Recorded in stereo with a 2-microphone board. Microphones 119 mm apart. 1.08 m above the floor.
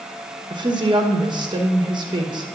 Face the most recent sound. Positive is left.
turn(degrees=-35)  # may be behind; listen again after turning